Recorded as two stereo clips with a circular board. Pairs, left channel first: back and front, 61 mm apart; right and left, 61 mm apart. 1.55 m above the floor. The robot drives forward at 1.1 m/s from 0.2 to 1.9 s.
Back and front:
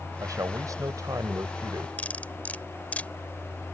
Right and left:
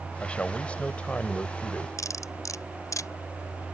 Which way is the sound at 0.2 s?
20° right.